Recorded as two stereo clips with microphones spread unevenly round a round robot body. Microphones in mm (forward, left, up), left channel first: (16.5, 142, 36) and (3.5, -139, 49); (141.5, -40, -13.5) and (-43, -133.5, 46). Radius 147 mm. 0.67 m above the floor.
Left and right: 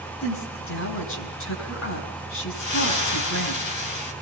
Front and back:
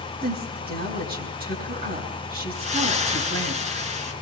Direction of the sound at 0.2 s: 130° left.